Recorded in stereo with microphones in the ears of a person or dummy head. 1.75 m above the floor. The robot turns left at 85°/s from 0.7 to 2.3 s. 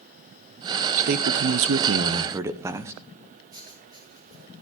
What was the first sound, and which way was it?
A man speaking, 50° right.